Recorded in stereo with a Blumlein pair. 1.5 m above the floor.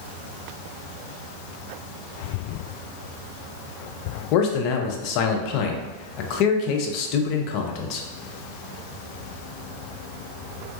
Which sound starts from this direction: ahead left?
A man speaking, at 4.3 s.